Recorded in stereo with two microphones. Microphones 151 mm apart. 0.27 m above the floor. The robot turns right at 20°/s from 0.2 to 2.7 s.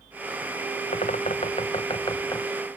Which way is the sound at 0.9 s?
130° left.